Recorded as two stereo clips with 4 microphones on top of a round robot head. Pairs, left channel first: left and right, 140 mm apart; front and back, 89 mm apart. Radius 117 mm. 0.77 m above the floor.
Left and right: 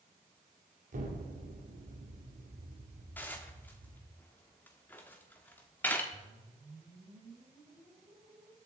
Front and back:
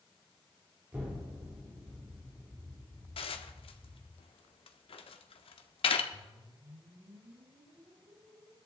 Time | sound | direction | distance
0.9 | an explosion | 110° right | 2.5 m
3.2 | dishes clattering | 10° left | 1.1 m
6.1 | a whoosh | 175° right | 4 m